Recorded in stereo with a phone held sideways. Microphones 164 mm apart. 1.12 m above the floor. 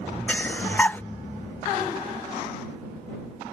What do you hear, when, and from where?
0.3 s breathing: 10° left (ahead or behind)